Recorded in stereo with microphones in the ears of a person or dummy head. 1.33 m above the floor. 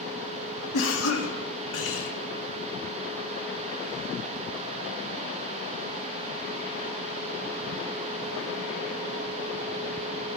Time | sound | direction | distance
0.7 | a cough | 85° left | 2 m